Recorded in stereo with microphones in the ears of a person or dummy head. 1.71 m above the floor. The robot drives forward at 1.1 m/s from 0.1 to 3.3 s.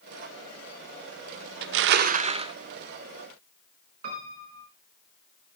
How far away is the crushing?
About 0.5 m.